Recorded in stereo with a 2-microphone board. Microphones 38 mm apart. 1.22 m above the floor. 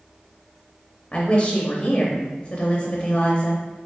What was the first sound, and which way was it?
A woman speaking, 25° left (ahead or behind).